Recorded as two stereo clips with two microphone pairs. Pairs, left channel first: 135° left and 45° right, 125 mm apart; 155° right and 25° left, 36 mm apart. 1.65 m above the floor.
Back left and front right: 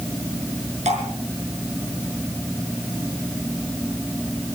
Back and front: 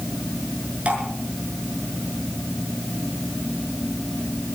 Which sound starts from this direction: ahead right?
Dripping, at 0.8 s.